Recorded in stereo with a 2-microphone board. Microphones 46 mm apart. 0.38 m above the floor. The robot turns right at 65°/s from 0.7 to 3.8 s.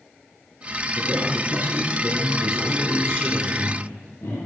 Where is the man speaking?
105° right, 5.5 m; by 4.4 s 80° left, 5.5 m.